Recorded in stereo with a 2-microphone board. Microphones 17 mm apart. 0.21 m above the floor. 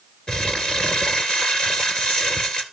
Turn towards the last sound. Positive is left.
turn(degrees=60)  # may be behind; listen again after turning